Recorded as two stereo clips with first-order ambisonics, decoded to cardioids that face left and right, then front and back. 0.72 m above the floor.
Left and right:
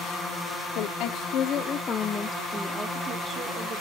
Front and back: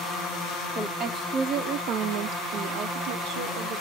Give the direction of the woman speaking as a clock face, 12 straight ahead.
8 o'clock.